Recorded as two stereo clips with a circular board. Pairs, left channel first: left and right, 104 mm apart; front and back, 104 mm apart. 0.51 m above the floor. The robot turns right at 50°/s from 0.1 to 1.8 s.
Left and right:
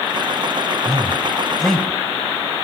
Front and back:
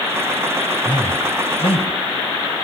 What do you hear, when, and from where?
0.8 s a man speaking: 35° right, 3 m; by 2.6 s 10° left, 3 m